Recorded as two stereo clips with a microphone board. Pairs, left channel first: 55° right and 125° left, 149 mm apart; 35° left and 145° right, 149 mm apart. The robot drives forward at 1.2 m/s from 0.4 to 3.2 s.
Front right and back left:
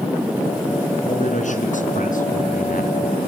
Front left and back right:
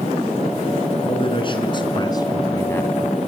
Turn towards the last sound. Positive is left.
turn(degrees=-50)